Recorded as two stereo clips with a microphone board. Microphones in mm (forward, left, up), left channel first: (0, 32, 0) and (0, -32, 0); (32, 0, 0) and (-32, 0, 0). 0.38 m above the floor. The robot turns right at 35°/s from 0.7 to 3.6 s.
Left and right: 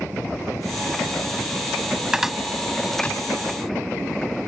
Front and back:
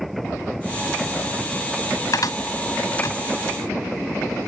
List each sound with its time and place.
2.1 s a cupboard door: 10° right; by 3.2 s 25° left